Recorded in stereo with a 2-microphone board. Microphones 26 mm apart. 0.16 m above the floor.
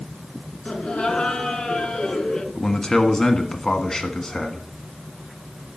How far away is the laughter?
About 2 m.